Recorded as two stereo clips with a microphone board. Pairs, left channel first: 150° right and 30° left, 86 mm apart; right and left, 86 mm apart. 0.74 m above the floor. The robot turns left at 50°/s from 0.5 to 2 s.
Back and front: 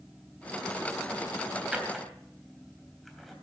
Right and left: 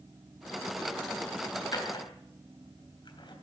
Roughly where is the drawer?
Ahead right.